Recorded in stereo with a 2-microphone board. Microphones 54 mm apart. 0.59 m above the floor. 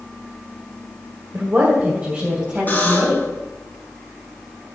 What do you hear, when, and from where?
1.3 s a woman speaking: 40° right (ahead or behind), 2 m; by 3.2 s 20° right (ahead or behind), 4 m
2.7 s a buzzer: 35° left (ahead or behind), 4.5 m